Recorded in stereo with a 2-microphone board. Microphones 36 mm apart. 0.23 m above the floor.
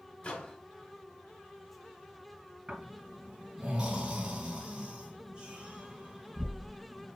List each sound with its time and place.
0.2 s a microwave: 25° left (ahead or behind), 0.8 m
2.7 s snoring: 25° right (ahead or behind), 2.5 m